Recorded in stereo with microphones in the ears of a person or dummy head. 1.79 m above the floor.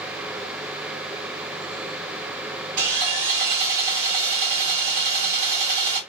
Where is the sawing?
60° right (ahead or behind), 1.7 m.